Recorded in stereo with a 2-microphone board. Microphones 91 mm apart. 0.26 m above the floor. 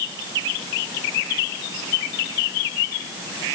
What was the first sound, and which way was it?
Only background noise.